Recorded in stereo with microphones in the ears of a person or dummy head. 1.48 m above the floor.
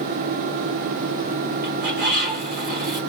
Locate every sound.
1.6 s a bird: 50° right (ahead or behind), 1.3 m